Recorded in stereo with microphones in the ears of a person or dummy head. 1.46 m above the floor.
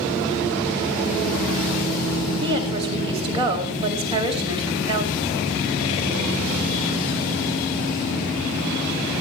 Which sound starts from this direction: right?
A woman speaking, at 2.4 s.